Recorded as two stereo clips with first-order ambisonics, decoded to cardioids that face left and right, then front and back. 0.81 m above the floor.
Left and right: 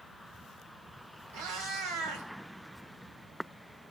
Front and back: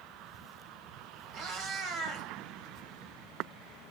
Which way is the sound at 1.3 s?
125° right.